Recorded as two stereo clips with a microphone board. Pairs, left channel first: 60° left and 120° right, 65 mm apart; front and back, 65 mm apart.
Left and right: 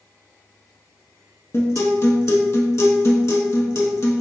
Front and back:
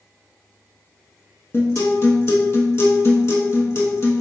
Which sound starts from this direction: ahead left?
A guitar, at 1.5 s.